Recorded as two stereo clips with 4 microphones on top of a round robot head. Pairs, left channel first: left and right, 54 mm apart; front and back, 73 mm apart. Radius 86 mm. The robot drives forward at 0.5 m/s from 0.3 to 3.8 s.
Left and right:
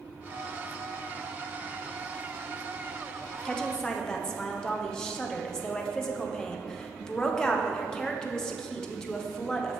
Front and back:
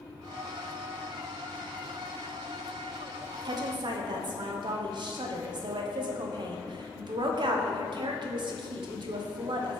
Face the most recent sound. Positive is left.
turn(degrees=170)